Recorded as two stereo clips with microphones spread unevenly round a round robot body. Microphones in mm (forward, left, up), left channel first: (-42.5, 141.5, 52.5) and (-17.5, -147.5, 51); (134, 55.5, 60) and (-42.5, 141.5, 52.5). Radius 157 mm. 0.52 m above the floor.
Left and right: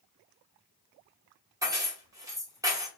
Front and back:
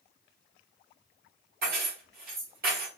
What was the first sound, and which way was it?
Keys jangling, 165° right.